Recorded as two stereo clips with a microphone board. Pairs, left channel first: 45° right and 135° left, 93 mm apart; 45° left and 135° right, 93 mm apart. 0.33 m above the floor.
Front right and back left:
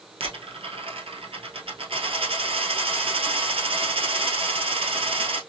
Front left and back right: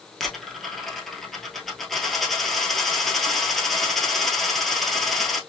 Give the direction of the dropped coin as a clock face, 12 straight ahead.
8 o'clock.